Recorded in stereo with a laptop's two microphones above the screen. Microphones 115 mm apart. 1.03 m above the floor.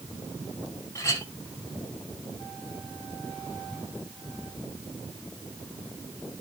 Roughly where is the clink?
Left.